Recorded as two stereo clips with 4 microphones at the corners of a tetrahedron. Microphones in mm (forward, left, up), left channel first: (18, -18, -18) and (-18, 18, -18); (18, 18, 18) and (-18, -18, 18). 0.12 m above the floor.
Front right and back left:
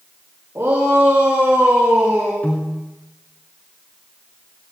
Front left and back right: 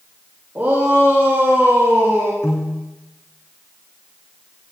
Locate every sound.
0.6 s a shout: 175° left, 7.5 m; by 2.3 s 175° right, 7.5 m
2.4 s a piano: 15° left, 4.5 m